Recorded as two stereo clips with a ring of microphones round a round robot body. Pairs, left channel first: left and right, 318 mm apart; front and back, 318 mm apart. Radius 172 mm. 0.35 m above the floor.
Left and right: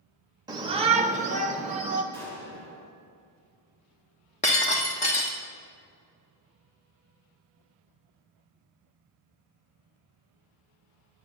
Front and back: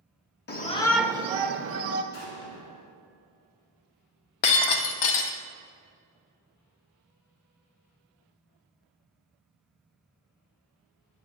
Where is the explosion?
5° left, 3 m.